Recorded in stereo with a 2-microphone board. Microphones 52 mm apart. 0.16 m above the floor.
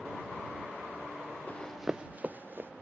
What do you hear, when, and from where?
1.5 s running footsteps: 30° left (ahead or behind); by 2.7 s 45° right (ahead or behind)